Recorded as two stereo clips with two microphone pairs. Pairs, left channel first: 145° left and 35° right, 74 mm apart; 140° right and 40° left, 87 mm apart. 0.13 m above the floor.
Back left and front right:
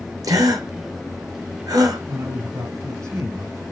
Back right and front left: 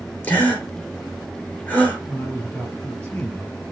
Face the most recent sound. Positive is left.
turn(degrees=-65)